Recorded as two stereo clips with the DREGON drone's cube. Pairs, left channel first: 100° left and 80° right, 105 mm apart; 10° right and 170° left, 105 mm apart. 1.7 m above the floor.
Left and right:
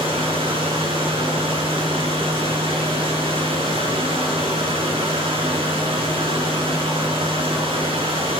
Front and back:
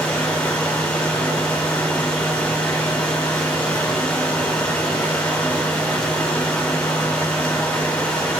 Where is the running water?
85° right, 4 m.